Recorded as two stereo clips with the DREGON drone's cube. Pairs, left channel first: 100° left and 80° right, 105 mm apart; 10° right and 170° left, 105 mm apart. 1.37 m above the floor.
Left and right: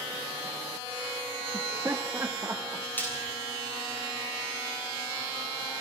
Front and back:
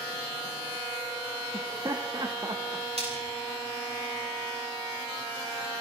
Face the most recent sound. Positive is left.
turn(degrees=170)